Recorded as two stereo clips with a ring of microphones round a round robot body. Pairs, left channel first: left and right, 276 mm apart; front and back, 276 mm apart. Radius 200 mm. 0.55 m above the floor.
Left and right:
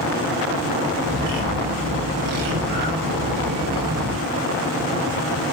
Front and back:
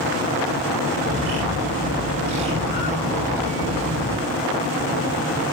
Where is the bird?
130° right, 3 m.